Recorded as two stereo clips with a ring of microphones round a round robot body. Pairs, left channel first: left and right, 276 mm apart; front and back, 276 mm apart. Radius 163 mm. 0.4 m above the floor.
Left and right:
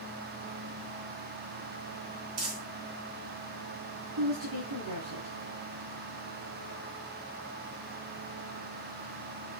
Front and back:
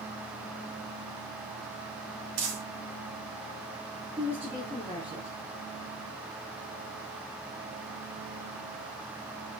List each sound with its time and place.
2.4 s crumpling: 135° right, 3 m
4.2 s a woman speaking: 95° right, 4.5 m